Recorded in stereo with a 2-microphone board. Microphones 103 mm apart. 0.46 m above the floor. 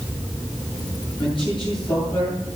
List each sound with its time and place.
1.2 s a man speaking: 55° left (ahead or behind), 10 m